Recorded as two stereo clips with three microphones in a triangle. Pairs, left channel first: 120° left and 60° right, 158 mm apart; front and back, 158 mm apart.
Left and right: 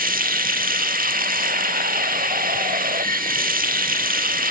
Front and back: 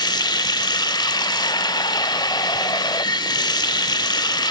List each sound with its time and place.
0.0 s running water: 60° right, 0.9 m